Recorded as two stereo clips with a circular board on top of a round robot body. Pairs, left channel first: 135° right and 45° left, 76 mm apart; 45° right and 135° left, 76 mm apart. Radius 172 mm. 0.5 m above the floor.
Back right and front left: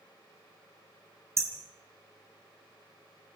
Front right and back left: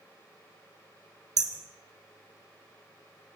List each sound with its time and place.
1.4 s hammering: 100° left, 3.5 m